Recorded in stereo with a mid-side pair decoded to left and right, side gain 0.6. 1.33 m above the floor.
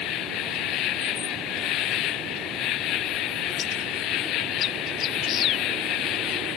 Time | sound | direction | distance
0.0 | an insect | 65° left | ?